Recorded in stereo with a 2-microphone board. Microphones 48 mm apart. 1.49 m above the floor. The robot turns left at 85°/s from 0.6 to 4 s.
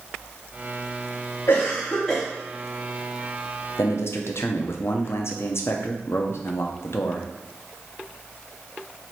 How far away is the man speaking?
About 0.5 m.